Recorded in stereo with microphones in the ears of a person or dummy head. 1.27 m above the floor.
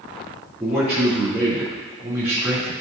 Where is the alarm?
I don't hear an alarm.